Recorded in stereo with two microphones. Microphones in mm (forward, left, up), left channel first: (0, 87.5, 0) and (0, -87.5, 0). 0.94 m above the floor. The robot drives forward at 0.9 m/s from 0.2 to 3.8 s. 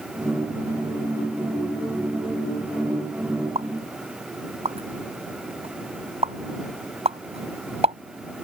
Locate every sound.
3.5 s a pop: 35° right (ahead or behind)